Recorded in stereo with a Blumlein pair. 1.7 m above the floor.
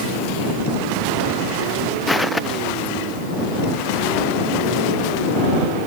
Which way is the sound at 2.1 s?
5° left.